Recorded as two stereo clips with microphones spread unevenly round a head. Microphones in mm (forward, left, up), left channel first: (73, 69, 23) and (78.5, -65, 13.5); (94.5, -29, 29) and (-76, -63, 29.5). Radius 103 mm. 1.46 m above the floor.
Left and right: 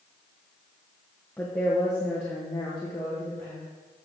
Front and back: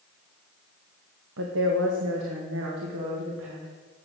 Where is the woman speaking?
175° left, 1.2 m.